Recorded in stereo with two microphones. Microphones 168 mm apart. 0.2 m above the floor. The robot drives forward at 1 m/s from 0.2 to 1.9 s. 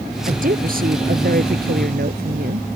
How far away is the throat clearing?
No throat clearing in this recording.